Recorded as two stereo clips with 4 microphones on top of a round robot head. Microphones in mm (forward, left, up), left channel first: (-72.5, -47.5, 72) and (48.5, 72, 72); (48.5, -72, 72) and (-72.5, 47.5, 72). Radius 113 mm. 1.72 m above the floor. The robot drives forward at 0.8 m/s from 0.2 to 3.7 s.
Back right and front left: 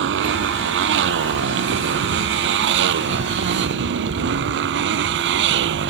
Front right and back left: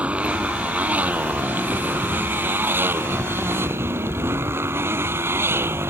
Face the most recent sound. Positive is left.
turn(degrees=55)